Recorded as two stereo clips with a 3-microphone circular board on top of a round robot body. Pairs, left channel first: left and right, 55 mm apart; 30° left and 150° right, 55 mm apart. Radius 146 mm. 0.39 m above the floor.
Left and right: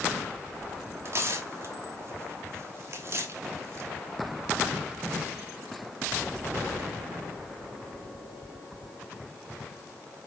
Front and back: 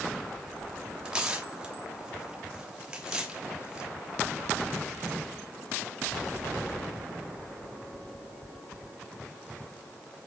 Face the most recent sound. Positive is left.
turn(degrees=-80)